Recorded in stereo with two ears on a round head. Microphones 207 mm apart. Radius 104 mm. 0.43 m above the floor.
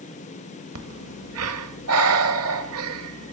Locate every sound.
0.8 s breathing: 70° right (ahead or behind), 1.2 m